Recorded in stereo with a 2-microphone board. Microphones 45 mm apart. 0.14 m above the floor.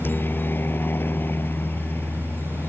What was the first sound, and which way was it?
A helicopter, 50° left (ahead or behind).